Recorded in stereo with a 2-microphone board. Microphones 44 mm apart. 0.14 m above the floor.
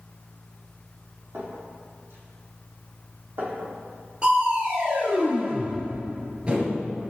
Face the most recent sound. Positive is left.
turn(degrees=-25)  # may be behind; listen again after turning